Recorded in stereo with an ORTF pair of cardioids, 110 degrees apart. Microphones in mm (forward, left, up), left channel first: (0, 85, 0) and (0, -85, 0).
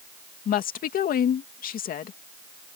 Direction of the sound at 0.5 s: 55° left.